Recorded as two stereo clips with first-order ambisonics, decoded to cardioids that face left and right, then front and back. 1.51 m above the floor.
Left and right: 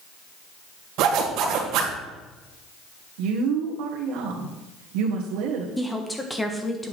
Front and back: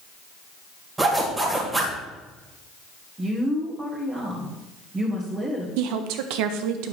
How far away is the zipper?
About 1.9 m.